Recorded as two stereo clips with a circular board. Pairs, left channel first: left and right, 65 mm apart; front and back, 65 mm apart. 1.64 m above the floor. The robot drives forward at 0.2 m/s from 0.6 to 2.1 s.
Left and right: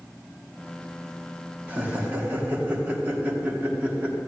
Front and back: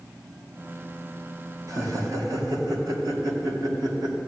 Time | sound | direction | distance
1.7 | laughter | 155° right | 2 m